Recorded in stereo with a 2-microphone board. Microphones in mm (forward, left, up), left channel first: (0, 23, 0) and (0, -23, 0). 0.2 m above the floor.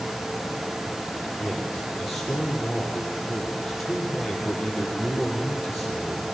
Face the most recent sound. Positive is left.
turn(degrees=-5)  # may be behind; listen again after turning